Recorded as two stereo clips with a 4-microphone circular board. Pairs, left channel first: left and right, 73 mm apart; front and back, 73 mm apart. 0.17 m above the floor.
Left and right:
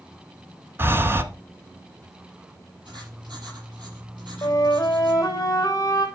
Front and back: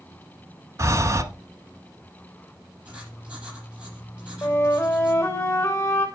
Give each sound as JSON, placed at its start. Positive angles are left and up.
{"t": 0.8, "sound": "breathing", "azimuth_deg": -140, "distance_m": 1.0}
{"t": 2.9, "sound": "writing", "azimuth_deg": -105, "distance_m": 6.0}
{"t": 4.4, "sound": "a flute", "azimuth_deg": 45, "distance_m": 3.0}